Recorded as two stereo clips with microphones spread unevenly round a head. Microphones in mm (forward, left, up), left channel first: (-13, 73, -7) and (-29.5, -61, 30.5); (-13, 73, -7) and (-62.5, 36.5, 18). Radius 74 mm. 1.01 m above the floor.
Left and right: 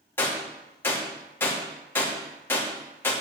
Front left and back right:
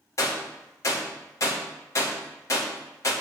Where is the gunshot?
15° left, 2.5 m.